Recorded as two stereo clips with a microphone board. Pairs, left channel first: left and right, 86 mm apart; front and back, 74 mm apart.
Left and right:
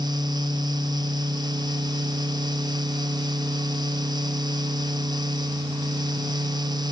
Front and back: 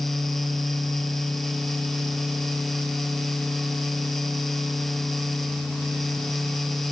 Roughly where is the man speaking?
I don't hear a man speaking.